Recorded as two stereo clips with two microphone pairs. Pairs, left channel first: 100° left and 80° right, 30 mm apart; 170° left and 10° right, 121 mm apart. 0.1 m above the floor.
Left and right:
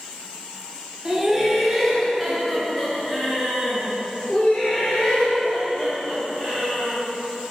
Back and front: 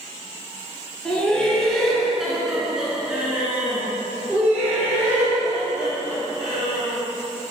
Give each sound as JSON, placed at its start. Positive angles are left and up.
{"t": 1.1, "sound": "laughter", "azimuth_deg": -125, "distance_m": 1.6}